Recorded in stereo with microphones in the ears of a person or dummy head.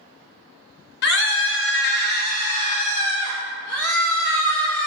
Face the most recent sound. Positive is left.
turn(degrees=10)  # may be behind; listen again after turning